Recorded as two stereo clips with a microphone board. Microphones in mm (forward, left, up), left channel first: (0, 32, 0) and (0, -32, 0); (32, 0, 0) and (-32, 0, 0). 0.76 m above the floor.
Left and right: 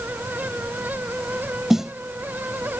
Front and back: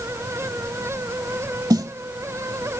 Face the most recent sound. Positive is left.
turn(degrees=-175)